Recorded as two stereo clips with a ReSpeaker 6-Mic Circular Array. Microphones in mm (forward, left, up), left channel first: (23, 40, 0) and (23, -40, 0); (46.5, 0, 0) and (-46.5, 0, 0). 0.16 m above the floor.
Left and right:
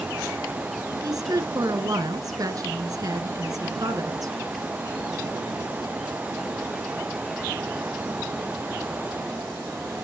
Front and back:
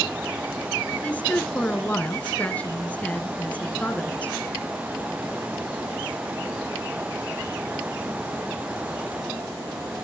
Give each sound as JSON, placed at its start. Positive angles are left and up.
{"t": 1.0, "sound": "a woman speaking", "azimuth_deg": -70, "distance_m": 1.8}